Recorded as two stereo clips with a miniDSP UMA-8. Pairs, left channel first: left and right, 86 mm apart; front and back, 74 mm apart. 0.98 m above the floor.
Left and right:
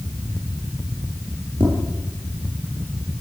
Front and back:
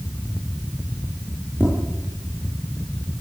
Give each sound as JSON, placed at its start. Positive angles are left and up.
{"t": 1.6, "sound": "tapping", "azimuth_deg": -115, "distance_m": 9.0}